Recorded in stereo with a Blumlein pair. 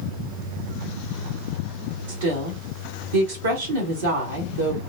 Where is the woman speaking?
65° right, 1.3 m.